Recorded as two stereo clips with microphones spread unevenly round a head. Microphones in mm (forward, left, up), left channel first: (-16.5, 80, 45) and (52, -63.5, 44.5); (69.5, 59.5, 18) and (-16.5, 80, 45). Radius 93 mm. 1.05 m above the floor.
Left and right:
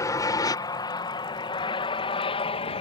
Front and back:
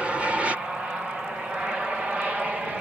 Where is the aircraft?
70° left; by 2.8 s 80° left.